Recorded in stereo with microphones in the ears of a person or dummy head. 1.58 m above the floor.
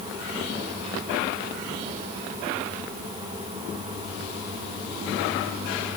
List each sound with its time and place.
Only background noise.